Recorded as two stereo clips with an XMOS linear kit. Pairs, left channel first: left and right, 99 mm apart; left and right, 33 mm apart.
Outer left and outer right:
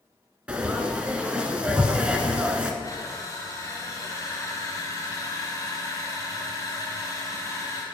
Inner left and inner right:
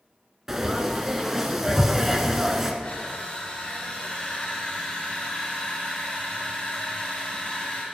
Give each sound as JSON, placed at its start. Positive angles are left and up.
{"t": 0.5, "sound": "frying", "side_deg": -10, "distance_m": 1.0}
{"t": 2.8, "sound": "crushing", "side_deg": 35, "distance_m": 1.8}